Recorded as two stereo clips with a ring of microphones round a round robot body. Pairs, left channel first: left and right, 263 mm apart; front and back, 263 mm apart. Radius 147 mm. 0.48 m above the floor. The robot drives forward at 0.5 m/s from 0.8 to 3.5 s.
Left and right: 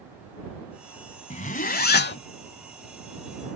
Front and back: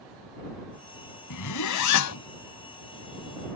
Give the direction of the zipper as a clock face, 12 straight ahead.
11 o'clock.